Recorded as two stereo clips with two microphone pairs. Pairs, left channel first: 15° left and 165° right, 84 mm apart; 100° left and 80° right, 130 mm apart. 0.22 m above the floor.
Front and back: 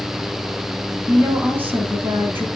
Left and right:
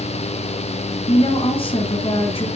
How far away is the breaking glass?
No breaking glass in this recording.